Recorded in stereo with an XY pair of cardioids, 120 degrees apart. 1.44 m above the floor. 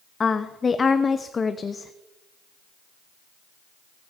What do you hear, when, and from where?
0.2 s a woman speaking: 30° left, 0.7 m